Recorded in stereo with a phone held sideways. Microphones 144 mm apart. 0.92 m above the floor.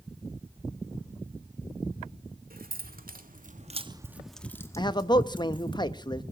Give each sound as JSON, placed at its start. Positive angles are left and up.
{"t": 2.5, "sound": "keys jangling", "side_deg": -85, "distance_m": 1.9}
{"t": 4.8, "sound": "a man speaking", "side_deg": 30, "distance_m": 0.8}